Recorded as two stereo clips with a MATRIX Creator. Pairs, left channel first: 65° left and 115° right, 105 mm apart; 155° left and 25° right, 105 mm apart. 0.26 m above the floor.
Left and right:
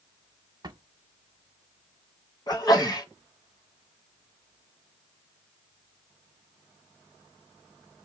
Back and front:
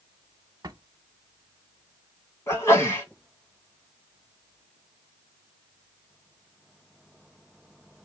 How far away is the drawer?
About 0.6 m.